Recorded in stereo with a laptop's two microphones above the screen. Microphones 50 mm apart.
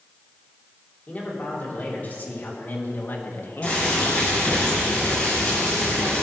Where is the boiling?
25° left (ahead or behind), 4 m.